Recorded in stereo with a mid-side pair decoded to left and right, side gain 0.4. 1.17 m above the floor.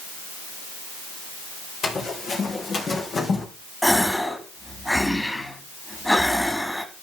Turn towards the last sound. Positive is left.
turn(degrees=5)